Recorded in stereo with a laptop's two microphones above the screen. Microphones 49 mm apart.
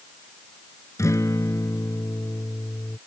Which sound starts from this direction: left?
A guitar, at 1.0 s.